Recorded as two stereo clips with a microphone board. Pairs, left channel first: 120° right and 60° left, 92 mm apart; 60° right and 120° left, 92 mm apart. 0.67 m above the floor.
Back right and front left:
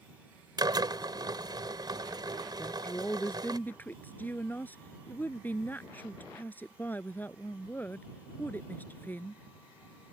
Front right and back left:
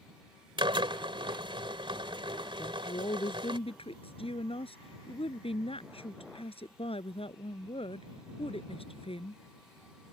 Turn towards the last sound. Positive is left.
turn(degrees=-50)